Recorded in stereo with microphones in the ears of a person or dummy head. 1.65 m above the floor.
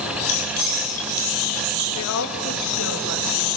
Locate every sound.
0.3 s keys jangling: 70° left (ahead or behind), 4.5 m; by 1.9 s 80° left, 5.5 m
1.9 s a woman speaking: 80° left, 3 m